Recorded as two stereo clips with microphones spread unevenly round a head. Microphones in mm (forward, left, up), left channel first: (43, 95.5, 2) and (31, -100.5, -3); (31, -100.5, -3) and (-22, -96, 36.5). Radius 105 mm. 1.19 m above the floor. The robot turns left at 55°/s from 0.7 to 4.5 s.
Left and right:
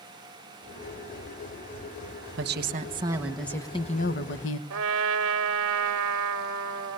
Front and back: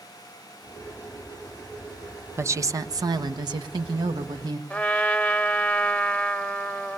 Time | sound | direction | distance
2.4 | a woman speaking | 130° right | 1.1 m
4.7 | a trumpet | 85° right | 1.5 m